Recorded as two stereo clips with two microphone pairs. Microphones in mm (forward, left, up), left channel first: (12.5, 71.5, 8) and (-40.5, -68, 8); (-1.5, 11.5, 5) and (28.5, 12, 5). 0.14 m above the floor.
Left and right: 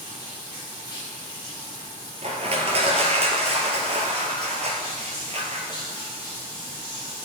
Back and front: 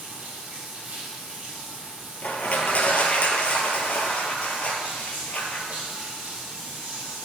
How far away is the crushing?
About 1.1 m.